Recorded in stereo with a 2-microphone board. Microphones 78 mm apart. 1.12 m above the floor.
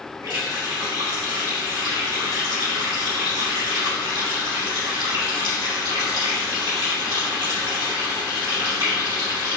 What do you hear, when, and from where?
0.2 s a running tap: 70° right (ahead or behind), 2 m